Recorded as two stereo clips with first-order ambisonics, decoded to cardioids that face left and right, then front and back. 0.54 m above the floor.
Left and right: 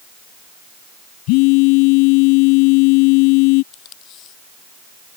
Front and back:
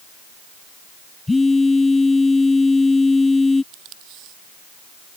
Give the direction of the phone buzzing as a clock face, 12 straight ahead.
9 o'clock.